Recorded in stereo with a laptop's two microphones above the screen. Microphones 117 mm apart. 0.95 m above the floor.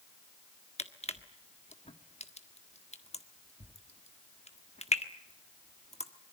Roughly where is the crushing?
Left.